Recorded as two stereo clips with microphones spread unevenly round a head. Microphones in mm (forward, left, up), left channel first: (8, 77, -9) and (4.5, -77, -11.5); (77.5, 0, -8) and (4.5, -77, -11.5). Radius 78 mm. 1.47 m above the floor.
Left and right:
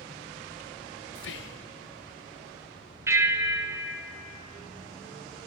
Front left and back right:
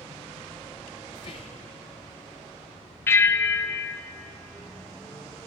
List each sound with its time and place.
1.1 s whispering: 110° left, 0.5 m
3.1 s a bell: 20° right, 0.6 m